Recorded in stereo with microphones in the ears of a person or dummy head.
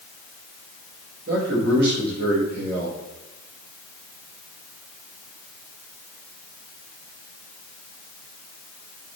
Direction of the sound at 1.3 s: 55° right (ahead or behind).